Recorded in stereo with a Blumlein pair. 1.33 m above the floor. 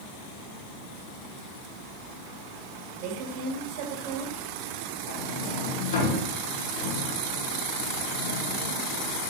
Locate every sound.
3.0 s a woman speaking: 40° right, 2.5 m
5.1 s a sliding door: 55° left, 2.5 m